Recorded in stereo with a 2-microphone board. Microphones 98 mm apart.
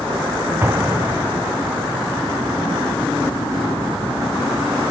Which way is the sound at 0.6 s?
25° right (ahead or behind).